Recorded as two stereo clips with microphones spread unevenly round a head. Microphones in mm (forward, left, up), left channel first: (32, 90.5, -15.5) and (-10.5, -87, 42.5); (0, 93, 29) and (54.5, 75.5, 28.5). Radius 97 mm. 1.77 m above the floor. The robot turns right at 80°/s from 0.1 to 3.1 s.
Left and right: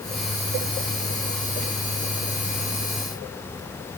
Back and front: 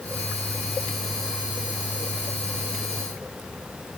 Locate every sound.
Only background noise.